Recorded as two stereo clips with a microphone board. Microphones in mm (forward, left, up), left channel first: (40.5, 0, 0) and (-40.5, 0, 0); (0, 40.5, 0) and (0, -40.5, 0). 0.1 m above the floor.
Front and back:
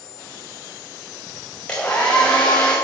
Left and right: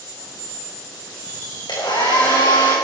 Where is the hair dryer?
75° left, 4.5 m.